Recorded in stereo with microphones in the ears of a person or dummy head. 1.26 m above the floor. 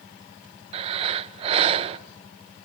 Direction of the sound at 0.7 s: 25° right (ahead or behind).